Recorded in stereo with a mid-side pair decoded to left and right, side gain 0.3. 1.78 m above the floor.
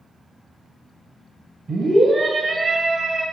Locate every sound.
1.7 s a scream: 35° right, 1.9 m; by 3.2 s 65° right, 2.5 m